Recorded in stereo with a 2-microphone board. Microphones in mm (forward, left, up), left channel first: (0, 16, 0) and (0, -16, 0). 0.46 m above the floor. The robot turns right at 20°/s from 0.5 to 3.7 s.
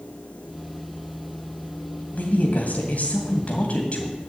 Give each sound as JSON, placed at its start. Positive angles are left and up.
{"t": 2.1, "sound": "a woman speaking", "azimuth_deg": 100, "distance_m": 2.5}